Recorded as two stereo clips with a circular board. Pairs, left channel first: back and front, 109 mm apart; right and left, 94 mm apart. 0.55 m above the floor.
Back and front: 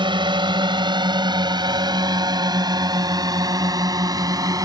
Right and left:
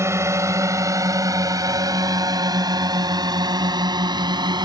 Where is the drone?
35° left; by 4.7 s 55° left.